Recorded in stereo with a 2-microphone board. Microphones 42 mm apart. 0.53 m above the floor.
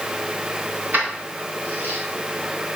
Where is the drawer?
I don't hear a drawer.